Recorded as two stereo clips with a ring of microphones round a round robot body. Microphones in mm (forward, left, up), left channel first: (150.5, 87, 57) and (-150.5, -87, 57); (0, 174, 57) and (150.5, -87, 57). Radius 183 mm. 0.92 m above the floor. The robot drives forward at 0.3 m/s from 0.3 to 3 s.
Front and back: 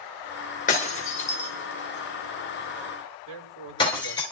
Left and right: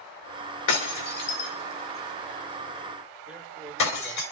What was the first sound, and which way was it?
Breaking glass, 100° left.